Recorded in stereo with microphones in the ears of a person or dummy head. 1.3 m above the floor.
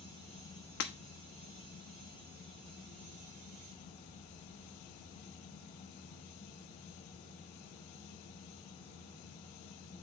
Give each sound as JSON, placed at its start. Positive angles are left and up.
{"t": 0.8, "sound": "breaking glass", "side_deg": 45, "distance_m": 0.9}